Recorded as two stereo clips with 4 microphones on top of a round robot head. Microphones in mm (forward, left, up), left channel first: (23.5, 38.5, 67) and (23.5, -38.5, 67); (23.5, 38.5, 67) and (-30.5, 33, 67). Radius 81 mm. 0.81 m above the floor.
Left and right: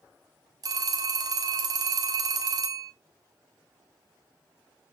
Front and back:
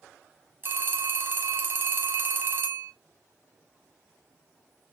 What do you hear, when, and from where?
0.6 s a phone ringing: 125° right, 0.8 m